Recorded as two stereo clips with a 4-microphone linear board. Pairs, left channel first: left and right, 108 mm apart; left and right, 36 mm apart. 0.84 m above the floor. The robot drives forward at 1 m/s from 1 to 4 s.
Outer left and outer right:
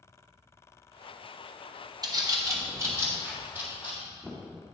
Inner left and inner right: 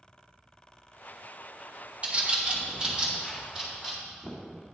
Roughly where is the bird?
Right.